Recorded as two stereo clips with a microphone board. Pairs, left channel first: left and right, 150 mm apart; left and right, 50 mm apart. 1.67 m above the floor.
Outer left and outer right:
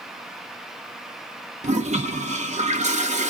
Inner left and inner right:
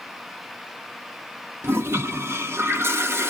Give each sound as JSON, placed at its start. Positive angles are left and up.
{"t": 1.6, "sound": "a toilet flushing", "side_deg": -50, "distance_m": 0.7}